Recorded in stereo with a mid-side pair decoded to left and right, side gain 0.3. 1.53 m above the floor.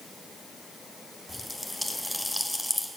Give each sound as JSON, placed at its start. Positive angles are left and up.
{"t": 1.3, "sound": "a pop", "azimuth_deg": 0, "distance_m": 1.2}